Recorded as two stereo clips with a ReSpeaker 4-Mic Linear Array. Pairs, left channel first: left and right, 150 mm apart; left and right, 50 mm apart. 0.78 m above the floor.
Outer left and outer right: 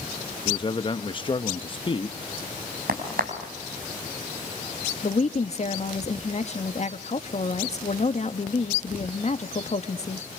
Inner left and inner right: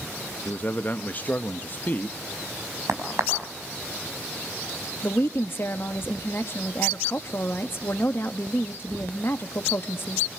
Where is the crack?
80° right, 5.5 m.